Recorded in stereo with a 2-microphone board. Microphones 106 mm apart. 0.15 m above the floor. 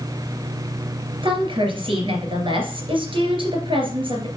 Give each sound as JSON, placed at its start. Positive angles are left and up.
{"t": 1.2, "sound": "a woman speaking", "side_deg": -55, "distance_m": 2.5}